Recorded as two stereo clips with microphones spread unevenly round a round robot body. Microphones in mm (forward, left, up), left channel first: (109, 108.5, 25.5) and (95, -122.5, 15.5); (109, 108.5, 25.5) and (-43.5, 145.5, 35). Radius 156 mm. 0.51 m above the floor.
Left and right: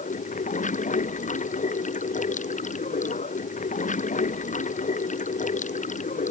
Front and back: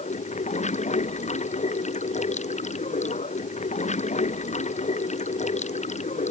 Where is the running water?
30° left.